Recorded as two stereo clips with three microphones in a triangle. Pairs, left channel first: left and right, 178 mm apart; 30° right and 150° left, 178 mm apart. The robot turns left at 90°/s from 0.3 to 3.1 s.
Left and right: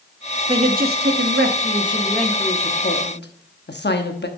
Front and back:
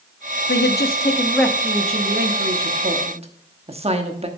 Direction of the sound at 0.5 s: 25° right.